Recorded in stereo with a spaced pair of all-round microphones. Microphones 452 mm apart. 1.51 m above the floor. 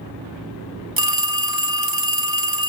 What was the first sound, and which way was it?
A phone ringing, 50° right (ahead or behind).